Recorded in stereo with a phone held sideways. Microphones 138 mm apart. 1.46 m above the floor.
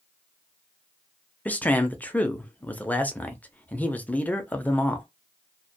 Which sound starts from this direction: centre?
A man speaking, at 1.4 s.